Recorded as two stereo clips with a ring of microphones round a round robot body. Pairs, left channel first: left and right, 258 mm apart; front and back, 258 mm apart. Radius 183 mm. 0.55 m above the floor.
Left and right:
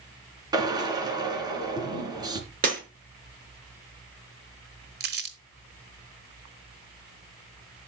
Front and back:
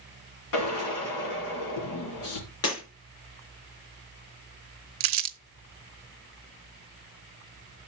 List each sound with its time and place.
0.5 s a drill: 15° right, 3 m
2.6 s breaking glass: 30° right, 5 m
5.0 s crumpling: 150° right, 0.6 m